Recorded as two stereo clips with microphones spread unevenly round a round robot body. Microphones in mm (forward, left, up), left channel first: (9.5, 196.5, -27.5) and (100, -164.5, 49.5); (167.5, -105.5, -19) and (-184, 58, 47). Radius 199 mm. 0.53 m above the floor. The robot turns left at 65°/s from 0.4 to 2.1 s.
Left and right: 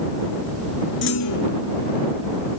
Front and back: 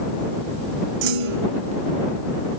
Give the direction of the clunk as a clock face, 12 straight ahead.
6 o'clock.